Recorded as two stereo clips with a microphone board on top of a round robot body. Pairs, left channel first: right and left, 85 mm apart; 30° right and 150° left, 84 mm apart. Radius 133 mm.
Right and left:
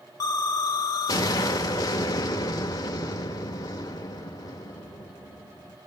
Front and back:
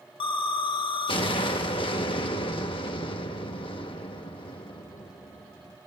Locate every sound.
0.2 s an explosion: 45° right, 0.8 m